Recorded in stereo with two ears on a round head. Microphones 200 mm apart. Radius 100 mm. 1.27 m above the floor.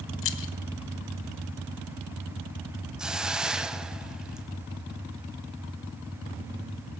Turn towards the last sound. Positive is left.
turn(degrees=-5)  # may be behind; listen again after turning